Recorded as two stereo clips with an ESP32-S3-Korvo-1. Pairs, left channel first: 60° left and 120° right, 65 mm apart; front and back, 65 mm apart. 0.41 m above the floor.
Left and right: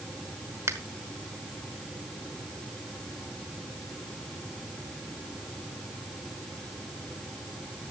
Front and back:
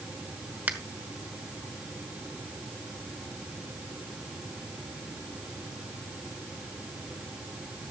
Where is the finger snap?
120° right, 1.2 m.